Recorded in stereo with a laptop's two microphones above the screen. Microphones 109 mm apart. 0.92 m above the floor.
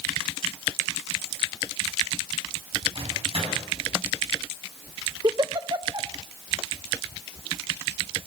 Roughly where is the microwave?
Right.